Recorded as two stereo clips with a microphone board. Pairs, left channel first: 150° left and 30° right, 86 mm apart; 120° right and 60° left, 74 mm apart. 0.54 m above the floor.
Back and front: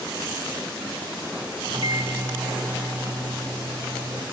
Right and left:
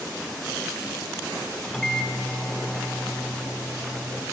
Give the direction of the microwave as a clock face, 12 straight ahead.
1 o'clock.